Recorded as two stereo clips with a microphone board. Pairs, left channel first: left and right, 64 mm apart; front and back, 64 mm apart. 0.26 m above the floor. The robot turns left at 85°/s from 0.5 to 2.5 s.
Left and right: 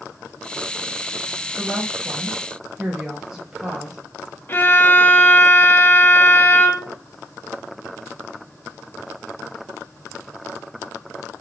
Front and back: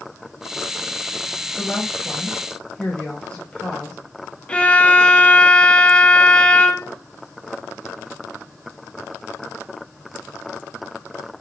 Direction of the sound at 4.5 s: 60° left.